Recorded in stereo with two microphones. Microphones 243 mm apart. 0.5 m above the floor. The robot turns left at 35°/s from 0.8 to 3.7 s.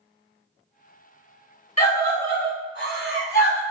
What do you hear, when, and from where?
1.8 s a scream: 20° left (ahead or behind), 1.9 m; by 3.6 s 50° left (ahead or behind), 1.9 m